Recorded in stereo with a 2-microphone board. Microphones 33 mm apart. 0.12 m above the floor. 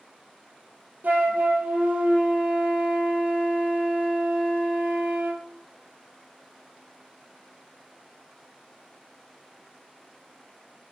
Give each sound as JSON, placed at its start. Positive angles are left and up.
{"t": 1.0, "sound": "a flute", "side_deg": -70, "distance_m": 0.6}